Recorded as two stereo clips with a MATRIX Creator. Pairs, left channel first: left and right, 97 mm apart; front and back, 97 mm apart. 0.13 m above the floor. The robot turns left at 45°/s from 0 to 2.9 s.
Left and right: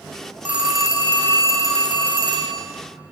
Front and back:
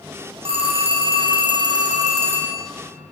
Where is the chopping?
I don't hear chopping.